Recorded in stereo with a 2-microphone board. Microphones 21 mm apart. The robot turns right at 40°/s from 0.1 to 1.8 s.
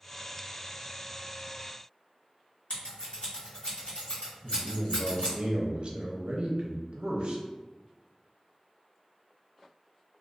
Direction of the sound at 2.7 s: 60° left (ahead or behind).